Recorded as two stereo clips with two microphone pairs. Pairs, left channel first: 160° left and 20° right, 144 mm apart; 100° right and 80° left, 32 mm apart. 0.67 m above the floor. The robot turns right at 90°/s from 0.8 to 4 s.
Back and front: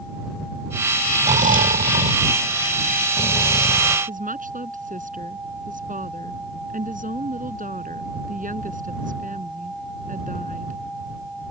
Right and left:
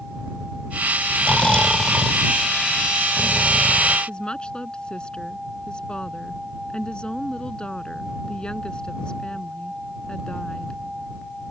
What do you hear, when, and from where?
1.2 s snoring: 65° right; by 4.0 s straight behind
4.1 s a woman speaking: 40° right